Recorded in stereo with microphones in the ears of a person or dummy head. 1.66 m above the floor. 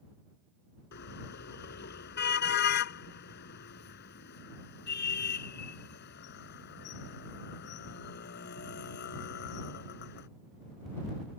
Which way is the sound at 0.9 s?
55° left (ahead or behind).